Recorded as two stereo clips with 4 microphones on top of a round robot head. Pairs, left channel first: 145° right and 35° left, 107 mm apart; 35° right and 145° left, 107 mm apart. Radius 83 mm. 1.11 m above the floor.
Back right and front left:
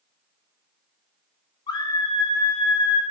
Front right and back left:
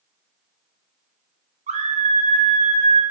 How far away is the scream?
About 1.4 m.